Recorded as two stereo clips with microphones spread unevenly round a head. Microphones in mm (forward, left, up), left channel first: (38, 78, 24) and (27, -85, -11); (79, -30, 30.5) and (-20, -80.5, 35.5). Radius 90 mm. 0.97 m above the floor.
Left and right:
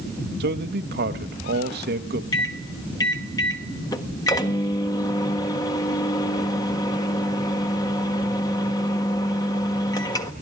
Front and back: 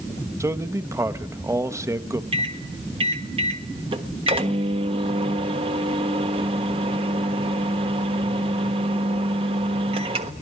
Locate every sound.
0.4 s a man speaking: 90° right, 1.0 m
2.3 s a microwave: 160° left, 1.3 m